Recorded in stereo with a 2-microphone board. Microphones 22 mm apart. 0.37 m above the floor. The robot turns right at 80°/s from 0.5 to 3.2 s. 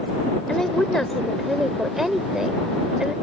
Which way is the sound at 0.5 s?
85° left.